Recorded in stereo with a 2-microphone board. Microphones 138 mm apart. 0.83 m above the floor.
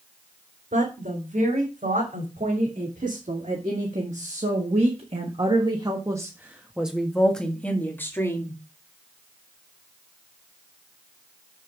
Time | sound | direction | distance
0.7 | a woman speaking | 65° right (ahead or behind) | 4 m